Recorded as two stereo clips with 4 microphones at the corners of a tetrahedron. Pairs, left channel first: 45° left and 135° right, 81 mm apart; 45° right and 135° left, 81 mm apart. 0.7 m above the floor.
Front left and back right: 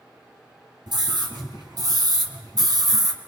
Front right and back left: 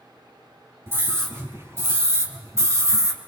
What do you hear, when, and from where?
0.9 s a scream: 165° right, 5 m; by 3.2 s 175° right, 2.5 m